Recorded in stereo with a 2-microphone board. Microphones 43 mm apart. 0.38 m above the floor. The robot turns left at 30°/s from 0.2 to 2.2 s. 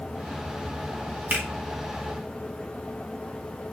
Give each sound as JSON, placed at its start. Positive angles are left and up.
{"t": 1.3, "sound": "a finger snap", "side_deg": -45, "distance_m": 2.5}